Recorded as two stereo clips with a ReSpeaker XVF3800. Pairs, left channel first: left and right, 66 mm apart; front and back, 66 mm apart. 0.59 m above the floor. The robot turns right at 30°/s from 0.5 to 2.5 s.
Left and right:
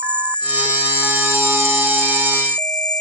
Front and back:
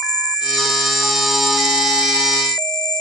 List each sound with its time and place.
0.0 s an insect: 20° left; by 3.0 s 80° left